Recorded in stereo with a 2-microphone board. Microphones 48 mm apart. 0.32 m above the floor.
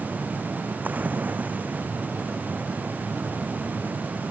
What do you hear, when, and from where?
0.8 s a splash: 35° right (ahead or behind)